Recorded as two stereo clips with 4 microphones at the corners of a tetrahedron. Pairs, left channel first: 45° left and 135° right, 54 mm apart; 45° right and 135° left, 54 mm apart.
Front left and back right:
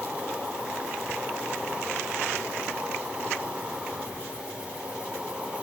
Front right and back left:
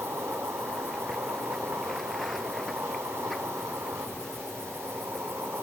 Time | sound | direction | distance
0.0 | an insect | 160° left | 1.7 m